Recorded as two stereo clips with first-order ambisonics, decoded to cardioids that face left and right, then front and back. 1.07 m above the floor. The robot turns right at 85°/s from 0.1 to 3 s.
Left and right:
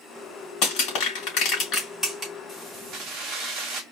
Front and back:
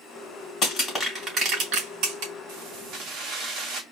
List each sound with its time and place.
0.6 s crushing: 50° left, 3 m; by 2.3 s 165° right, 3 m
2.5 s keys jangling: 175° right, 1.5 m; by 3.8 s 135° right, 1.5 m